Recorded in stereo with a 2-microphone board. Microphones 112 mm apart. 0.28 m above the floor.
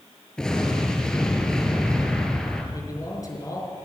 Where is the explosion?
5° left (ahead or behind), 3 m.